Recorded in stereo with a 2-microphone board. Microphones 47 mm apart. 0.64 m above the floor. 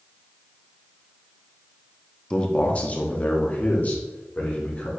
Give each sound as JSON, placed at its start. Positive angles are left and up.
{"t": 2.3, "sound": "a man speaking", "side_deg": 20, "distance_m": 0.6}